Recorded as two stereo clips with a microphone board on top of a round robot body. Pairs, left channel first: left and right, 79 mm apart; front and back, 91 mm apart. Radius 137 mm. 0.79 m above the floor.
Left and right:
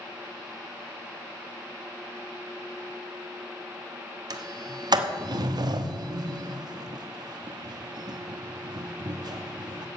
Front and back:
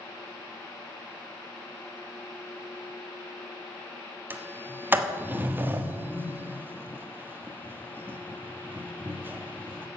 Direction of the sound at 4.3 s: 115° right.